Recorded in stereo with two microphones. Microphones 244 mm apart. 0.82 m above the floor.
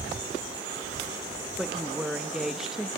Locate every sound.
1.6 s a woman speaking: centre (ahead or behind), 0.8 m